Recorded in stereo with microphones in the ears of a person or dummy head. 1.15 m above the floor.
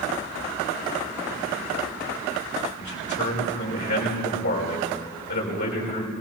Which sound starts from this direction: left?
A man speaking, at 2.8 s.